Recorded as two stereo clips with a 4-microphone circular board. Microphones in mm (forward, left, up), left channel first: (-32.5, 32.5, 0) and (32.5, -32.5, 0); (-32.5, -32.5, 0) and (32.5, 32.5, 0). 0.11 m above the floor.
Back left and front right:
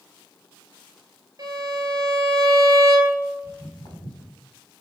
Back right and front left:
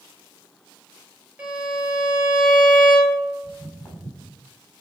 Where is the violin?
25° right, 2 m.